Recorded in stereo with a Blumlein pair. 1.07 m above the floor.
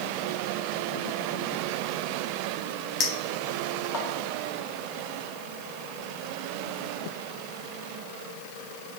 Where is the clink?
30° left, 1.1 m.